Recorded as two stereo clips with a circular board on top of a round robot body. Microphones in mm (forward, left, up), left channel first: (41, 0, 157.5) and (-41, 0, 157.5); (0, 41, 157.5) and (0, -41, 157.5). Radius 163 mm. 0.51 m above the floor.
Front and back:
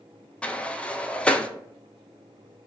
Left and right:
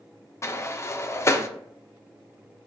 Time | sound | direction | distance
0.4 | a sliding door | 65° left | 0.5 m